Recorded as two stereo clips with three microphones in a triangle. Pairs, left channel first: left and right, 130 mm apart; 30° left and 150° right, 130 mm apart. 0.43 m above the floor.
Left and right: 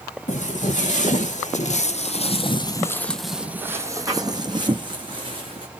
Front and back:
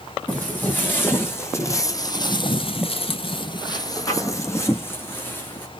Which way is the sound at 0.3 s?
105° left.